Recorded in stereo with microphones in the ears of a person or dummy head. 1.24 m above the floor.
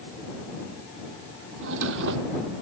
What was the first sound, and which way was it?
A drawer, 70° right (ahead or behind).